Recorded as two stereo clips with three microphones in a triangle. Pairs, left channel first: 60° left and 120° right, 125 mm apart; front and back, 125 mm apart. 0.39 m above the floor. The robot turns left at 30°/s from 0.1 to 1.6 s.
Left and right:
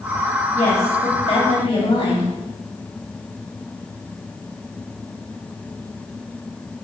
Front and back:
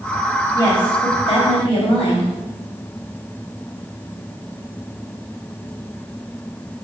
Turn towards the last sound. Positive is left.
turn(degrees=25)